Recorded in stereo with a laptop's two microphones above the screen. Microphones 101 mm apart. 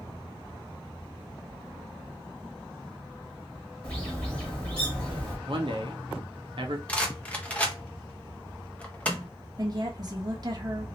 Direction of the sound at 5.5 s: 55° right (ahead or behind).